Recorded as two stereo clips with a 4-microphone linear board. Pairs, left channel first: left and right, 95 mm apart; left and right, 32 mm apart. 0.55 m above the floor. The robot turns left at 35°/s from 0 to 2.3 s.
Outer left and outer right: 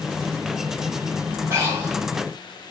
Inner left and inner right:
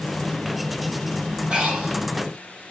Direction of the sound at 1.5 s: 25° right (ahead or behind).